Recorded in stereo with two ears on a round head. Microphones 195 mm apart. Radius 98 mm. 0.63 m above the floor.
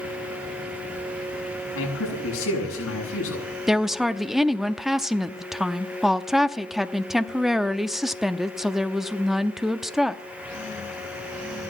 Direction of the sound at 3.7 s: Centre (ahead or behind).